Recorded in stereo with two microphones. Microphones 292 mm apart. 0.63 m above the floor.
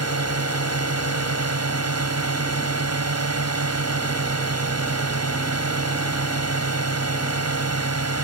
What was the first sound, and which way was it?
A drone, 55° right (ahead or behind).